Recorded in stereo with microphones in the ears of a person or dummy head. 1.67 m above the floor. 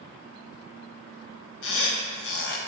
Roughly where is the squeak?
Left.